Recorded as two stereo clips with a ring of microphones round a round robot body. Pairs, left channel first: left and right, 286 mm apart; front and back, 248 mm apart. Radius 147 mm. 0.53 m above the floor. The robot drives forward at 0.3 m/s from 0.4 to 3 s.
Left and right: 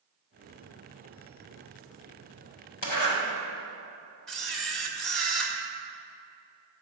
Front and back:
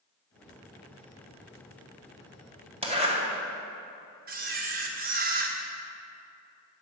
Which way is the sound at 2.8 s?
115° left.